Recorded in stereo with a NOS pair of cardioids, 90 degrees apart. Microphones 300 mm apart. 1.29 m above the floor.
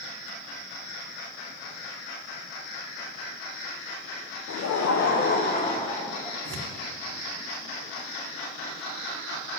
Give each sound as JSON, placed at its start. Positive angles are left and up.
{"t": 4.5, "sound": "laughter", "azimuth_deg": 65, "distance_m": 0.7}
{"t": 6.5, "sound": "tearing paper", "azimuth_deg": -55, "distance_m": 1.3}